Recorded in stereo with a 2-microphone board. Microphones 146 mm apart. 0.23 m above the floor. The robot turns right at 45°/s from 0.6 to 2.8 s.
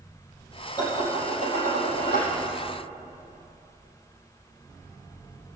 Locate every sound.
0.8 s dishes clattering: 25° left, 4.5 m; by 2.3 s 95° left, 4.5 m